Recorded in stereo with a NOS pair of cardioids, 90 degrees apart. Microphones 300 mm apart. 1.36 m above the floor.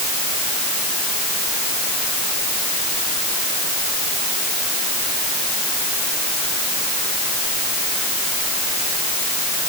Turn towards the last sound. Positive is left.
No sound to turn to.